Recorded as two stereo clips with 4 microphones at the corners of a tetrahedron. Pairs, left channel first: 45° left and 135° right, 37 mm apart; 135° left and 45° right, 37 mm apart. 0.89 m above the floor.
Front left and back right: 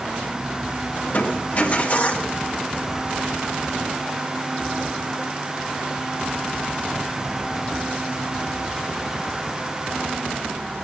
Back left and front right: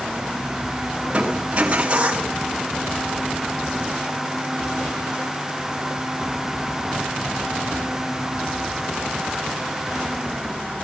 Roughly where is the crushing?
Ahead.